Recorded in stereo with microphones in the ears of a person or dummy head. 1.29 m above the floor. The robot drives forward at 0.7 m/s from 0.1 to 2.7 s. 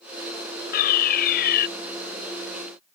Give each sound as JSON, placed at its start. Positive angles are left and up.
{"t": 0.7, "sound": "a fire alarm", "side_deg": 50}